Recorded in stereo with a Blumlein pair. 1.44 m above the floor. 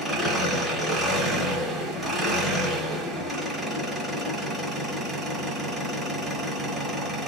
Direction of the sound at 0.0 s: 15° right.